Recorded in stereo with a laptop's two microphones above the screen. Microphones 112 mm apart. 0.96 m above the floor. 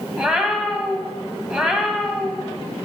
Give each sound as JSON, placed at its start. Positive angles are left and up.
{"t": 0.2, "sound": "a cat meowing", "side_deg": -10, "distance_m": 1.5}